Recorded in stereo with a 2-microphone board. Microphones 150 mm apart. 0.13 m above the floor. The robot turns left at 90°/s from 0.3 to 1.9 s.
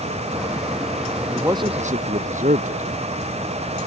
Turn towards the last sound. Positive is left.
turn(degrees=-60)